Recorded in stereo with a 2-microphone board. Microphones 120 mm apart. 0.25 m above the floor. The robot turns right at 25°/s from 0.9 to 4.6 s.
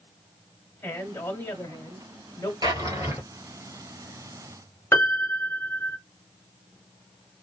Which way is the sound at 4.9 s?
25° left (ahead or behind).